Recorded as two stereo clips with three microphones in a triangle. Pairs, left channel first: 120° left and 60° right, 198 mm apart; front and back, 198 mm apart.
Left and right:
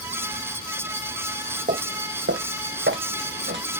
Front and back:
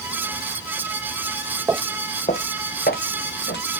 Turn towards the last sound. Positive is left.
turn(degrees=-30)